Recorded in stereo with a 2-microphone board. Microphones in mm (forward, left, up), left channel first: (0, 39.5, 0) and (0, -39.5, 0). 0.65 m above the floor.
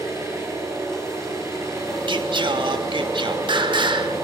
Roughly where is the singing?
Right.